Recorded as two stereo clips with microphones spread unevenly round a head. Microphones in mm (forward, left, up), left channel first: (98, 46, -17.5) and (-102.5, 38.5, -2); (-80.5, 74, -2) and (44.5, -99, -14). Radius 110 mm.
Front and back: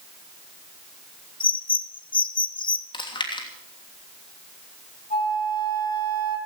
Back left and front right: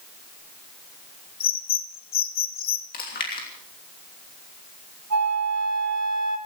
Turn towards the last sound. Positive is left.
turn(degrees=-60)